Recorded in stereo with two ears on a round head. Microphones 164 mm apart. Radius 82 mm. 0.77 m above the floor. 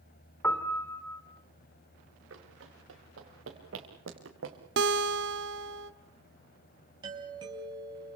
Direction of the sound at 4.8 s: 65° right (ahead or behind).